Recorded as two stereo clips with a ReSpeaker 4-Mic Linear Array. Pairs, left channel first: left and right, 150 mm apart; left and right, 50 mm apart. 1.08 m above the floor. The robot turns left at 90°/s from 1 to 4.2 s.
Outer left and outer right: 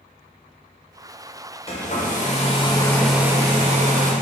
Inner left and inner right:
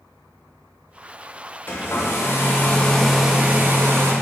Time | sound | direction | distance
1.7 | a hair dryer | 130° left | 0.6 m